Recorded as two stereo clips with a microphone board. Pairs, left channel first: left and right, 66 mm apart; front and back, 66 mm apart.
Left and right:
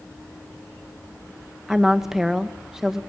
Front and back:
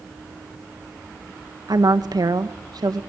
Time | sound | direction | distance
1.7 | a woman speaking | 175° right | 1.8 m